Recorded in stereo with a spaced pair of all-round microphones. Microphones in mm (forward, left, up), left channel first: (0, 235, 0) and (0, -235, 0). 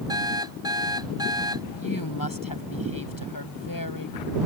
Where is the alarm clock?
10° right (ahead or behind).